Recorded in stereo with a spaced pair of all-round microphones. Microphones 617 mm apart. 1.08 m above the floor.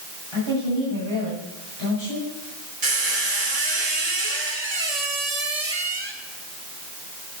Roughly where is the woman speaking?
Right.